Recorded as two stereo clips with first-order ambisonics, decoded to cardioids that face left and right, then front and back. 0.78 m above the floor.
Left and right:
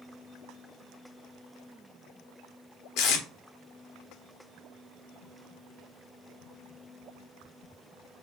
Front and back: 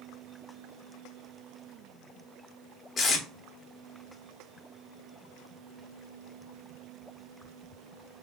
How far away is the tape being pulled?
About 1.0 m.